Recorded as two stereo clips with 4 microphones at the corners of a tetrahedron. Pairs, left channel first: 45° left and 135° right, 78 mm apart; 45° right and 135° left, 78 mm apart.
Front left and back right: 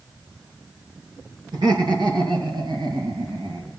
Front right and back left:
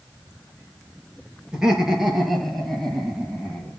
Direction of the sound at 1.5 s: 145° right.